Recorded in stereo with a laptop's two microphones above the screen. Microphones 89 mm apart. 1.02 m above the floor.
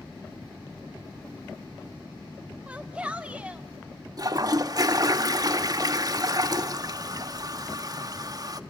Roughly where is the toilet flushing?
Right.